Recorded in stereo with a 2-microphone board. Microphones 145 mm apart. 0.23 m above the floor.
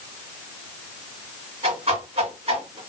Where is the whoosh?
45° right (ahead or behind), 1.9 m.